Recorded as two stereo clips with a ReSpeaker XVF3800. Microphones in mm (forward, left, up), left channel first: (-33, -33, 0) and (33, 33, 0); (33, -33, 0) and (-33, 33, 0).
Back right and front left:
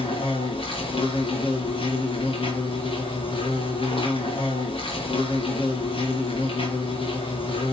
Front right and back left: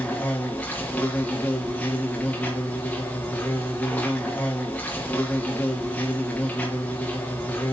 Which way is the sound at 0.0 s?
120° right.